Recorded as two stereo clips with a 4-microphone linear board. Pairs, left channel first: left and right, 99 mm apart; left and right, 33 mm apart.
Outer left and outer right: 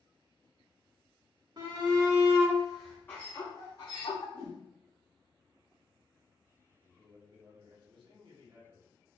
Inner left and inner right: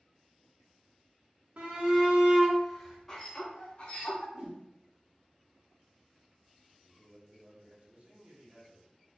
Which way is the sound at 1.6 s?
50° right (ahead or behind).